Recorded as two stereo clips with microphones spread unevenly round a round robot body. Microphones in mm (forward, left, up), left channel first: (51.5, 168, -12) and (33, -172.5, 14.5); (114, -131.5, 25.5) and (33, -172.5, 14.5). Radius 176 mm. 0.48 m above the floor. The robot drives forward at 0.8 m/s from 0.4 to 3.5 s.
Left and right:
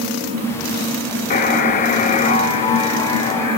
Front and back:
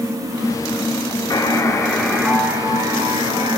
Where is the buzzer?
40° left, 0.9 m; by 3.6 s 165° left, 1.6 m.